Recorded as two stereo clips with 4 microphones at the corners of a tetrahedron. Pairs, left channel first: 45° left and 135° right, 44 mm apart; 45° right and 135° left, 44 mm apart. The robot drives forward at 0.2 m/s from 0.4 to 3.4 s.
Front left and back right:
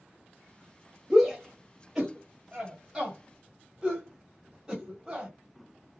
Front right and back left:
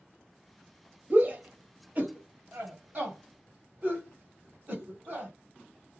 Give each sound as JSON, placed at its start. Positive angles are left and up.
{"t": 1.1, "sound": "a shout", "azimuth_deg": 140, "distance_m": 1.2}